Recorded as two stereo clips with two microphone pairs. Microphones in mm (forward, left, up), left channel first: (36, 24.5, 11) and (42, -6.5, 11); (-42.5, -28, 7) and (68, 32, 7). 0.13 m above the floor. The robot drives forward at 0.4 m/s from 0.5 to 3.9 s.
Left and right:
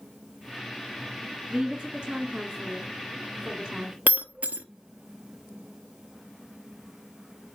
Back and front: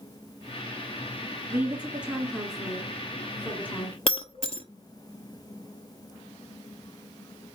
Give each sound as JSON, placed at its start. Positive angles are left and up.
{"t": 1.5, "sound": "a woman speaking", "azimuth_deg": -40, "distance_m": 1.7}
{"t": 4.1, "sound": "breaking glass", "azimuth_deg": -110, "distance_m": 0.6}